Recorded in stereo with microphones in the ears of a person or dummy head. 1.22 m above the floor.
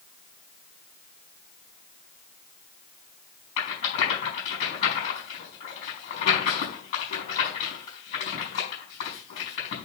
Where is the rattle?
45° left (ahead or behind), 5 m.